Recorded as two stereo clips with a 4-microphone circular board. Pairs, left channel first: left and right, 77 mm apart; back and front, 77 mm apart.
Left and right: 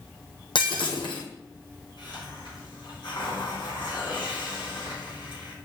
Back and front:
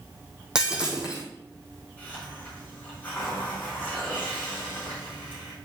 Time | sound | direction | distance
0.6 | breaking glass | 80° left | 2 m
2.0 | a hiss | 110° left | 4.5 m